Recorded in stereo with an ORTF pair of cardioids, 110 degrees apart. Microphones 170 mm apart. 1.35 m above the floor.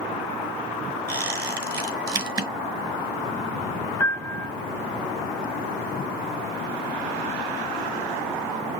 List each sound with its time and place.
1.1 s a squeak: 20° right, 5 m
4.0 s a piano: 15° left, 0.6 m